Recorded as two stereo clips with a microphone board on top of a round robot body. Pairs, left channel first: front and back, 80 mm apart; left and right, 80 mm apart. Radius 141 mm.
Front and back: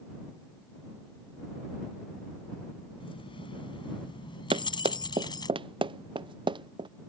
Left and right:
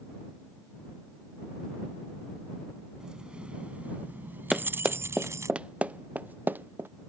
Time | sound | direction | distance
3.0 | keys jangling | 5° right | ?
4.5 | running footsteps | 175° right | ?